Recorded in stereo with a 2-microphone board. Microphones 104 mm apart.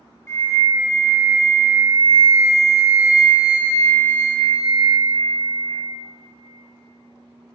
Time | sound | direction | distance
0.3 | a flute | 30° left (ahead or behind) | 0.5 m